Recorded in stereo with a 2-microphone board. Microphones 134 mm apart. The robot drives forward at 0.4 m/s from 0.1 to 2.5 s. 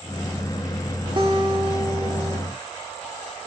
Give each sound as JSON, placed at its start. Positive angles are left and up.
{"t": 1.2, "sound": "a guitar", "side_deg": -40, "distance_m": 0.6}